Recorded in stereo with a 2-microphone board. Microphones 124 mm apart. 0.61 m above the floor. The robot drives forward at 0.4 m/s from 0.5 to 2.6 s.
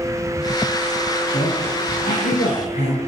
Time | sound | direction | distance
1.3 | a woman speaking | 80° left | 10 m